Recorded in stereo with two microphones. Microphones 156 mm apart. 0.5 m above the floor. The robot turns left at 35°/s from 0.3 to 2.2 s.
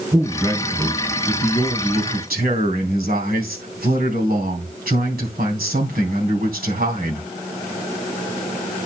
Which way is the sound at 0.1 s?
20° right.